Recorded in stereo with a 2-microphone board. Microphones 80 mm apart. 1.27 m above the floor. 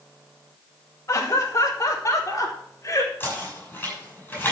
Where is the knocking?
25° left (ahead or behind), 6 m.